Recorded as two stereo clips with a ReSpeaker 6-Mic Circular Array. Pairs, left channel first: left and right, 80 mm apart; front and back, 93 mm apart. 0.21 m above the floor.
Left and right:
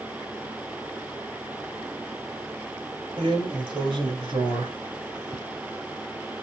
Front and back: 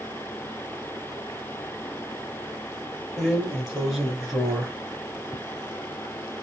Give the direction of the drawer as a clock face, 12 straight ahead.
3 o'clock.